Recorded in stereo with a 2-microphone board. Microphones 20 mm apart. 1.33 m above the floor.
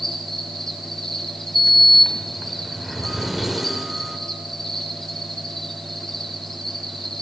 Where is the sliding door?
15° right (ahead or behind), 1.2 m.